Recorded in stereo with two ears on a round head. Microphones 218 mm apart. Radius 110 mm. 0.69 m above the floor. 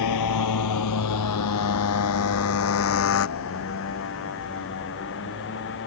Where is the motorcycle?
85° left; by 5.9 s 50° left (ahead or behind).